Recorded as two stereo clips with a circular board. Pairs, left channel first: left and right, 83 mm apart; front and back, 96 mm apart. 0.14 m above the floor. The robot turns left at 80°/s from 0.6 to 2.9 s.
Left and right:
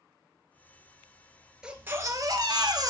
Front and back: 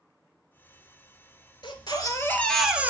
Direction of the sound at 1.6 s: 10° right.